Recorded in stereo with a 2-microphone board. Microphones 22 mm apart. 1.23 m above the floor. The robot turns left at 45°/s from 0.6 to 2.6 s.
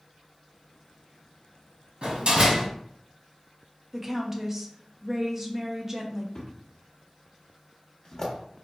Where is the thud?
35° left (ahead or behind), 1.1 m.